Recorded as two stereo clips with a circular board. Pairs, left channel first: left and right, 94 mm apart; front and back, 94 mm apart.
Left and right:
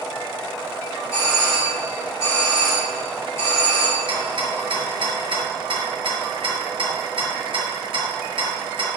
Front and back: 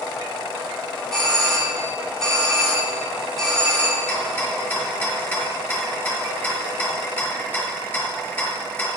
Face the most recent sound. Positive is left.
turn(degrees=-70)